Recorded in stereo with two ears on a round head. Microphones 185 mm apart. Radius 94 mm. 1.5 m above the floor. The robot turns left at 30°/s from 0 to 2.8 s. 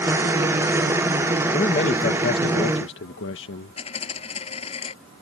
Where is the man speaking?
150° left; by 3.8 s 115° left.